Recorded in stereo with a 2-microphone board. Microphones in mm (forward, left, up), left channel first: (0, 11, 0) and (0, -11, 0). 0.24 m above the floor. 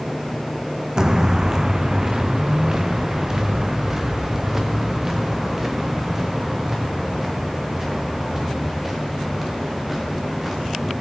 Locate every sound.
1.0 s footsteps: 25° right (ahead or behind), 0.7 m; by 10.9 s 10° right (ahead or behind), 6.5 m